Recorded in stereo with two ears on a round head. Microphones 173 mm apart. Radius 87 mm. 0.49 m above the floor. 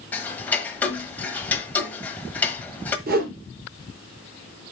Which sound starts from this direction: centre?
Ticking, at 0.1 s.